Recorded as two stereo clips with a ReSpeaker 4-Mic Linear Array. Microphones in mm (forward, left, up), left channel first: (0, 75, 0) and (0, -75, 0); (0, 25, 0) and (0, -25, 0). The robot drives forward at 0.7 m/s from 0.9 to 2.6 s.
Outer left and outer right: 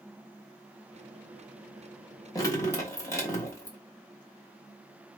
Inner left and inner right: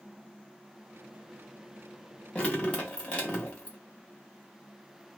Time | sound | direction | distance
2.4 | dripping | 25° left (ahead or behind) | 1.0 m